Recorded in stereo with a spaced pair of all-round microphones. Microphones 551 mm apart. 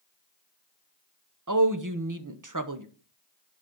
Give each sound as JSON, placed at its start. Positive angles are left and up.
{"t": 1.5, "sound": "a woman speaking", "side_deg": -35, "distance_m": 1.1}